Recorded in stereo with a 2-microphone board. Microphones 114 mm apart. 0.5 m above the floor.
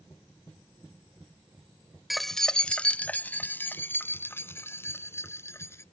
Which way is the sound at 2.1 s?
Centre (ahead or behind).